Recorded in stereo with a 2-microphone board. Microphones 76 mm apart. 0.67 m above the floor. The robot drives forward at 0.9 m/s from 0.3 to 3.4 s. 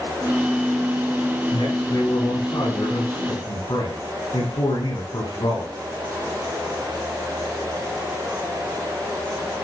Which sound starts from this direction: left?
A man speaking, at 1.5 s.